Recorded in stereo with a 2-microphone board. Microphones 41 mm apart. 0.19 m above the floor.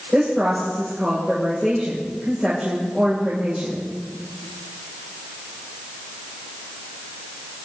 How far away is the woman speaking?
About 7.5 m.